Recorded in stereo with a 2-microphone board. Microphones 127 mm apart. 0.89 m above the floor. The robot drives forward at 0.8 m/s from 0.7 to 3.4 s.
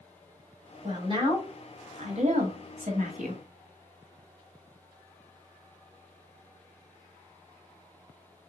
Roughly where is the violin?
I don't hear a violin.